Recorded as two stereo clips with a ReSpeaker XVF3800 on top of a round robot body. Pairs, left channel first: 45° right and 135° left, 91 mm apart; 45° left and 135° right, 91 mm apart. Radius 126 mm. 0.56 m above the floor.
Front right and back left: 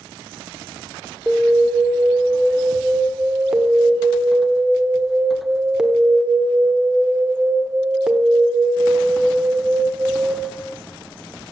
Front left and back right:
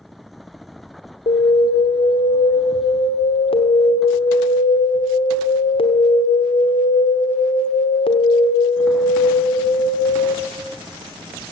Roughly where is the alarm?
Ahead left.